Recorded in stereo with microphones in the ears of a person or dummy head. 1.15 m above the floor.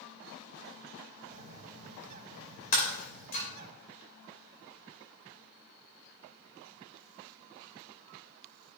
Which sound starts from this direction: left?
Breaking glass, at 2.7 s.